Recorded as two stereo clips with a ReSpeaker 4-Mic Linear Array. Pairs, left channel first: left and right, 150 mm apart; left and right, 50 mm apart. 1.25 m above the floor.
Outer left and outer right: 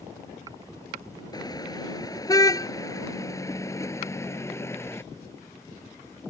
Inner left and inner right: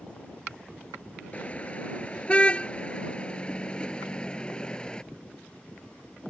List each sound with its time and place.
1.3 s a car horn: 25° left (ahead or behind); by 5.0 s 15° left (ahead or behind)